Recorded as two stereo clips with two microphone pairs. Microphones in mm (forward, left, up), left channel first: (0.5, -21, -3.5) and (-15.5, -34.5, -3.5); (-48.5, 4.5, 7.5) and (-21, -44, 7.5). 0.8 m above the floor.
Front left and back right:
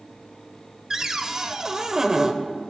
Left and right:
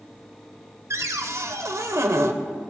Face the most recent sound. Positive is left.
turn(degrees=-80)